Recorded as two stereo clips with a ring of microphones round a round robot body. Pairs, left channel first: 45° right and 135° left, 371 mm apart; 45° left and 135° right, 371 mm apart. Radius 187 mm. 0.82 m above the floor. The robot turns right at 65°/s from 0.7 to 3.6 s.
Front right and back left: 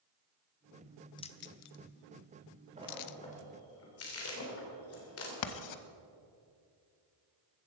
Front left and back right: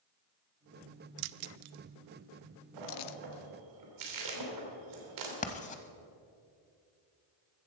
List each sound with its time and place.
1.2 s keys jangling: 125° right, 0.5 m; by 3.2 s 5° left, 0.5 m
2.8 s a splash: 155° right, 3 m; by 5.3 s 100° right, 3 m
5.4 s writing: 20° right, 0.9 m